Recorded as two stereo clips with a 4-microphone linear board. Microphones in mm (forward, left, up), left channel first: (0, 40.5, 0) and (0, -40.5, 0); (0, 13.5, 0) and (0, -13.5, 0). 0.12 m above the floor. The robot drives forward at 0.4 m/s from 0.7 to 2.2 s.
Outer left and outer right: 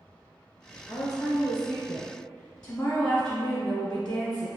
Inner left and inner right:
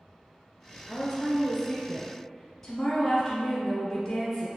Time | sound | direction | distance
0.9 | a woman speaking | 10° left (ahead or behind) | 1.5 m